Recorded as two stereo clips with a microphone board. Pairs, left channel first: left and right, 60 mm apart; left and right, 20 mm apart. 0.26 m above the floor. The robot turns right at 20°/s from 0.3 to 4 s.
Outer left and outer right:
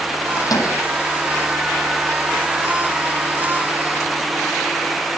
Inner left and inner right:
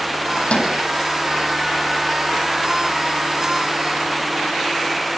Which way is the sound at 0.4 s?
85° left.